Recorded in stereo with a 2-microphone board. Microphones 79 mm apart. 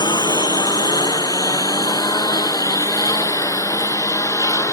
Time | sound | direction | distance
0.0 | a lawn mower | 70° left (ahead or behind) | ?